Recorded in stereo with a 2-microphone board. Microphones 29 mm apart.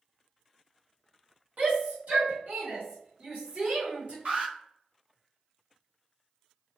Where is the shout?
60° right (ahead or behind), 1.4 m; by 4.2 s 55° right (ahead or behind), 1.2 m.